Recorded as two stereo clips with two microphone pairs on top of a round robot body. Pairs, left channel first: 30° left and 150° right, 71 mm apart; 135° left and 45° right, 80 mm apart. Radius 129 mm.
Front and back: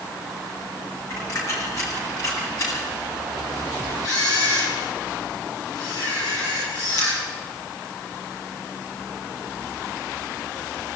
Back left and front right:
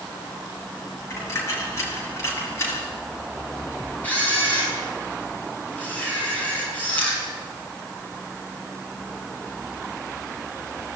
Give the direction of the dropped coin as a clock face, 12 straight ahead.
9 o'clock.